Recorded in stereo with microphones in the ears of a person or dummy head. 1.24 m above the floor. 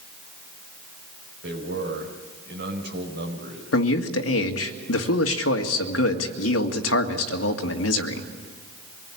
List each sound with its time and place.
1.4 s a man speaking: 55° right (ahead or behind), 5 m
3.7 s a man speaking: 75° left (ahead or behind), 1.9 m